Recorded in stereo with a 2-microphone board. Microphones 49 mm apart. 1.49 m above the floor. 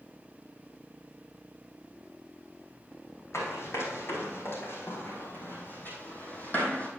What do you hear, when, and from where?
3.3 s running footsteps: 60° left (ahead or behind), 4 m; by 6.9 s 30° left (ahead or behind), 3 m